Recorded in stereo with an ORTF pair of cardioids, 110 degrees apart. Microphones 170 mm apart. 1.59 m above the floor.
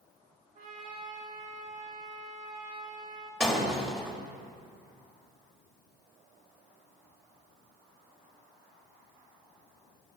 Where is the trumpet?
50° right, 2 m.